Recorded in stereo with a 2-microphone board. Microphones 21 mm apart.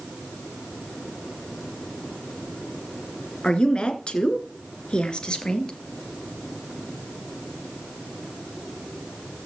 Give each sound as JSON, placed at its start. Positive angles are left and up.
{"t": 3.4, "sound": "a woman speaking", "side_deg": 45, "distance_m": 2.5}